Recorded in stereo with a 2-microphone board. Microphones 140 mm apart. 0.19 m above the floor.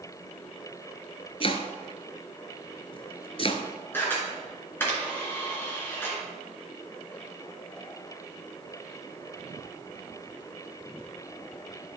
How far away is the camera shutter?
About 3 m.